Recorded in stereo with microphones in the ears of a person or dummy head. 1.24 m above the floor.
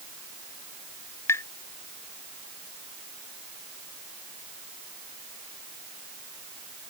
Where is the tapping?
15° left (ahead or behind).